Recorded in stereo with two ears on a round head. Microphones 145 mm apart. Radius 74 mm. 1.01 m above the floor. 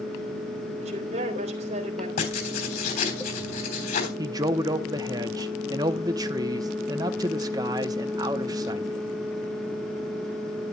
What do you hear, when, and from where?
0.8 s a woman speaking: 40° right (ahead or behind), 3 m
2.2 s writing: 60° left (ahead or behind), 3.5 m
4.2 s a man speaking: 25° right (ahead or behind), 0.7 m